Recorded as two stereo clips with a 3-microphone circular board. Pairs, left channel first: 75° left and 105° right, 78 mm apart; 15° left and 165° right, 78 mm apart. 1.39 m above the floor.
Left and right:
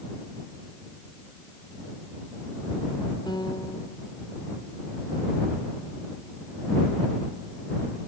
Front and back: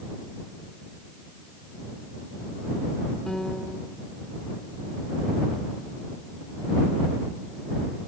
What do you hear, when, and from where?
3.3 s a piano: 100° left